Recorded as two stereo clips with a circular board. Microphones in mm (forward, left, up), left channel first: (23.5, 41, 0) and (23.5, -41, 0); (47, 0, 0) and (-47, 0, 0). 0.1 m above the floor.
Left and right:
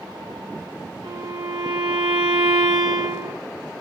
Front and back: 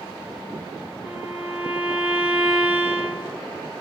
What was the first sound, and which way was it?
A violin, 110° right.